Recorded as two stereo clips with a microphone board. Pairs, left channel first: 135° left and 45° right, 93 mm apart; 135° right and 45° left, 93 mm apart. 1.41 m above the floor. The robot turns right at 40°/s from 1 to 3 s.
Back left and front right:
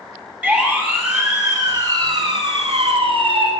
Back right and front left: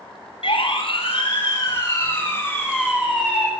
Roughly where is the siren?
Behind right.